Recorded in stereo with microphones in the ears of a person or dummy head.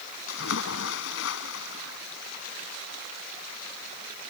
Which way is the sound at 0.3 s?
80° left.